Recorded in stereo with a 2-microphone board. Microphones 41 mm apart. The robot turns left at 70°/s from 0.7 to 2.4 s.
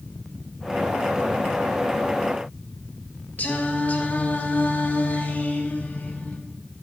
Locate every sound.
3.4 s singing: 45° left (ahead or behind), 1.9 m